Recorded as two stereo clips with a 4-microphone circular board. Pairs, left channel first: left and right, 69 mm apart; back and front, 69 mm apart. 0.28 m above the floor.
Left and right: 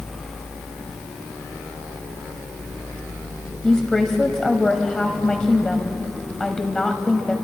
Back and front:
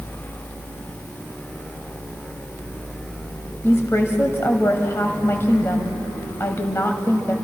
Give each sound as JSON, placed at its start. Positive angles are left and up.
{"t": 3.6, "sound": "a woman speaking", "azimuth_deg": 170, "distance_m": 1.7}